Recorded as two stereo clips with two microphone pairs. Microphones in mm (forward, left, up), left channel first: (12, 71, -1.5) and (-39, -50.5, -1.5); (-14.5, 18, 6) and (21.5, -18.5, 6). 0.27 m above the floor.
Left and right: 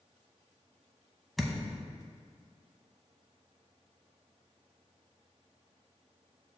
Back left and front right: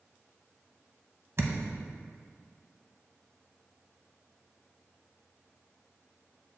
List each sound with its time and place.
1.4 s a thud: 20° right, 0.7 m